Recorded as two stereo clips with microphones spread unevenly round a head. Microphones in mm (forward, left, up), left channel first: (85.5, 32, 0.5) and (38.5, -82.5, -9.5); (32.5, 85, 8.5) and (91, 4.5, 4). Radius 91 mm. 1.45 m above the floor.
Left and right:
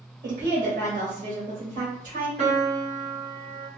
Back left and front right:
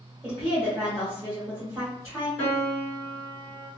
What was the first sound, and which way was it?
A woman speaking, 160° right.